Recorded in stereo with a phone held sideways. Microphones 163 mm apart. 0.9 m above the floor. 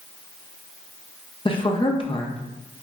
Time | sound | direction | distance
1.4 | a woman speaking | 35° left (ahead or behind) | 0.6 m